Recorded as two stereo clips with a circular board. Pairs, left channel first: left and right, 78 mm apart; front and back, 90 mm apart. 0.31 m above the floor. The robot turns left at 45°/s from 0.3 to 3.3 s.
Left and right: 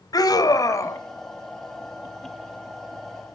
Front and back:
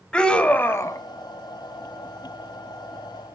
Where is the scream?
75° left, 2.5 m; by 1.0 s 45° left, 2.5 m.